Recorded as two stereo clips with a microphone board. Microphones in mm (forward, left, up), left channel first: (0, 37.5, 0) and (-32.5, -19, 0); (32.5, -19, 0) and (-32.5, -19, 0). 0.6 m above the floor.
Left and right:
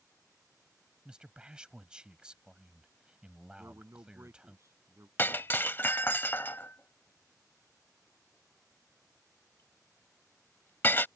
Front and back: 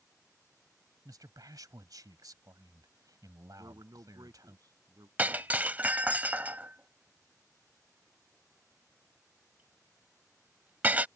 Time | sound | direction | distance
1.1 | a man speaking | 165° left | ?
3.6 | a man speaking | 165° right | ?
5.2 | breaking glass | 120° left | ?